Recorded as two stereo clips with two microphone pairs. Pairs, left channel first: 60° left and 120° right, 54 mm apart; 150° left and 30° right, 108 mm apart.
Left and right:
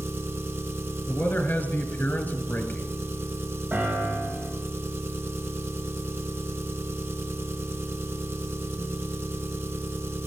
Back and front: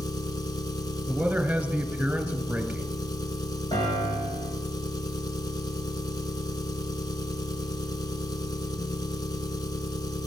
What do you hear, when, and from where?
0.0 s an engine running: 160° right, 1.3 m
1.1 s a man speaking: 40° left, 1.8 m
3.7 s a piano: 175° right, 5.5 m